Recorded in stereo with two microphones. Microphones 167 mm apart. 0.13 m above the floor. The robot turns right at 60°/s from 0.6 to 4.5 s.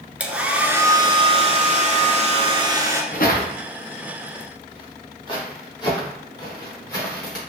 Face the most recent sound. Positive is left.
turn(degrees=20)  # may be behind; listen again after turning